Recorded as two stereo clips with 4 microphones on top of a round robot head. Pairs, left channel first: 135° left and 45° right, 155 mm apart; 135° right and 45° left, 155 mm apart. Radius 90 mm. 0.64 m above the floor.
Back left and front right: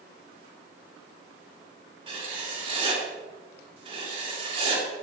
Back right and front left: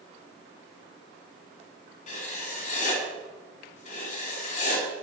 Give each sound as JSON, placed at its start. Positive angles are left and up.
{"t": 2.1, "sound": "writing", "azimuth_deg": -95, "distance_m": 3.5}